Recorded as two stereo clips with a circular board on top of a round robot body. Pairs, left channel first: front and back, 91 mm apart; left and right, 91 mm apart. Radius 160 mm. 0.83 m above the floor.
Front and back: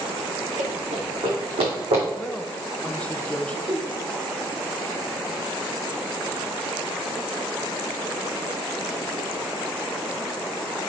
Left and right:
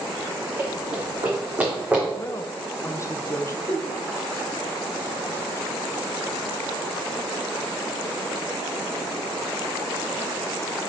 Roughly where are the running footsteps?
Behind right.